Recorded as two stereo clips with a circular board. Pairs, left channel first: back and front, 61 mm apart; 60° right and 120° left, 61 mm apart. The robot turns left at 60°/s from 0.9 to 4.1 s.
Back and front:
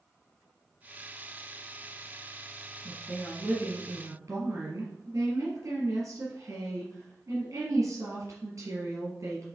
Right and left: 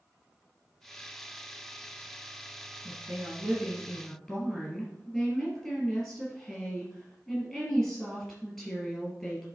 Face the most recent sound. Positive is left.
turn(degrees=30)